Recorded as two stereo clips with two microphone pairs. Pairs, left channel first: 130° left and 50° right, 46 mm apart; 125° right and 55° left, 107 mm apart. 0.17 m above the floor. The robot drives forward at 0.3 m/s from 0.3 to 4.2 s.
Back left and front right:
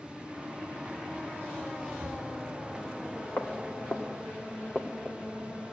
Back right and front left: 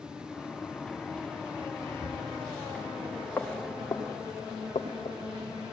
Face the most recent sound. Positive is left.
turn(degrees=-145)